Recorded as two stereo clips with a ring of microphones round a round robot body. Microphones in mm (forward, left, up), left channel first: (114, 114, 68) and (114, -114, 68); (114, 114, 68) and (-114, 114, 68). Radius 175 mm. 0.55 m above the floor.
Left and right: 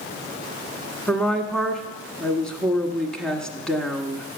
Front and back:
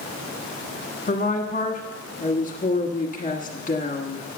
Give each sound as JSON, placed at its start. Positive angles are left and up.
{"t": 1.1, "sound": "a woman speaking", "azimuth_deg": 5, "distance_m": 1.4}